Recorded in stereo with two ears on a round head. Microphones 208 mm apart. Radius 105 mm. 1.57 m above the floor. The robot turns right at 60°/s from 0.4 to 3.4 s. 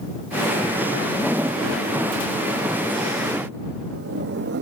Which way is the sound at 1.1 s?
10° left (ahead or behind).